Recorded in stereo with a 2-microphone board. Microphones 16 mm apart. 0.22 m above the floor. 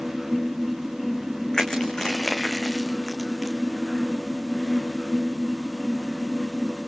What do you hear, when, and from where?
1.5 s crushing: 35° left (ahead or behind), 2.5 m